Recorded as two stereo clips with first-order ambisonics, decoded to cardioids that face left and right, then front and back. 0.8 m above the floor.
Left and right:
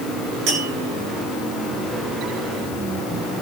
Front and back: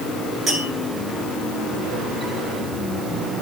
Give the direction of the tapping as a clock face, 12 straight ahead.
3 o'clock.